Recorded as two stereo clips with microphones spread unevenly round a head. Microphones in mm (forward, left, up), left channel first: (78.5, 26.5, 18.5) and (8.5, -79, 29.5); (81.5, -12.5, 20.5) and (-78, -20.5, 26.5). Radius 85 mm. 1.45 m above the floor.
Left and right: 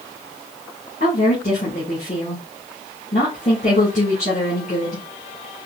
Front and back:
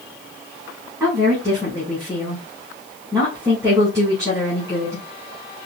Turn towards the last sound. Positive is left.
turn(degrees=110)